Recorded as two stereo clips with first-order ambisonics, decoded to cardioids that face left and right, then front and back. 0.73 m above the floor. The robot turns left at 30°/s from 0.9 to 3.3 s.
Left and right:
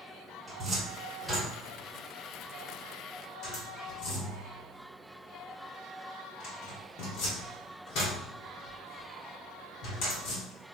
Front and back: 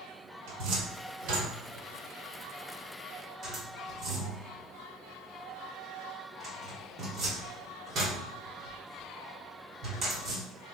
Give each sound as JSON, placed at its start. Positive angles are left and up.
{"t": 0.5, "sound": "a cupboard door", "azimuth_deg": -165, "distance_m": 1.4}